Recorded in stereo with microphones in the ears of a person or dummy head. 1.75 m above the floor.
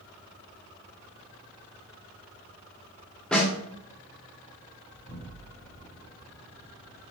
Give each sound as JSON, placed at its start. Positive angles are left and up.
{"t": 3.3, "sound": "a snare drum", "side_deg": 5, "distance_m": 0.7}
{"t": 4.9, "sound": "an explosion", "side_deg": -5, "distance_m": 1.7}